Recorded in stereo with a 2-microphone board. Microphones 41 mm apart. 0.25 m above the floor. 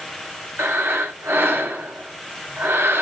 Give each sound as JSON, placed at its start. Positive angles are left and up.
{"t": 0.6, "sound": "breathing", "side_deg": -80, "distance_m": 0.8}